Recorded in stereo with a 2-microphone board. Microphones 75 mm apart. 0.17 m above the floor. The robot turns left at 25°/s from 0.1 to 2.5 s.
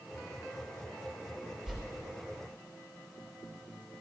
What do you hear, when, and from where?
1.7 s a whoosh: 5° right (ahead or behind), 3 m; by 1.8 s 10° right (ahead or behind), 3 m